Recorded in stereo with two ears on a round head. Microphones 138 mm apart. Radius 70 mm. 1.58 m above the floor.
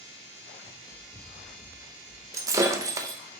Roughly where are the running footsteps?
Centre.